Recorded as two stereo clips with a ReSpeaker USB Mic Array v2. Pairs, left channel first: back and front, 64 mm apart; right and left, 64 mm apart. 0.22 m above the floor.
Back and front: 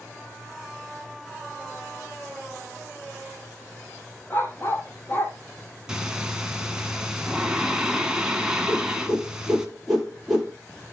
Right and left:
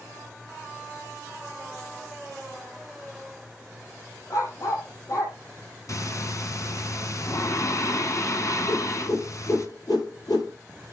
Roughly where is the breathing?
Right.